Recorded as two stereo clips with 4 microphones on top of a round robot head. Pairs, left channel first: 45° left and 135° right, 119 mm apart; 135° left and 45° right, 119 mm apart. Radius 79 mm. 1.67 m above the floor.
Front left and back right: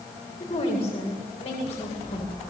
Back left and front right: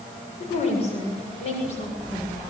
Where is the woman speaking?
95° left, 7.5 m.